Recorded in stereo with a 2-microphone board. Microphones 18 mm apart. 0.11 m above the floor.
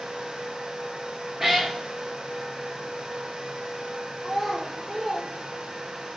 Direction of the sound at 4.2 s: Centre (ahead or behind).